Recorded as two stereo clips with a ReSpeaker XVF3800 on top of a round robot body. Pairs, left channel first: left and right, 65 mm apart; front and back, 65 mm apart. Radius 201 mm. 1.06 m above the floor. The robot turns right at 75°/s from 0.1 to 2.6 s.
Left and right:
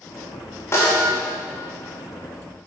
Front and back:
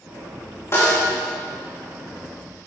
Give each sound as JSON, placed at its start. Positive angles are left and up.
{"t": 0.7, "sound": "a snare drum", "azimuth_deg": 45, "distance_m": 3.5}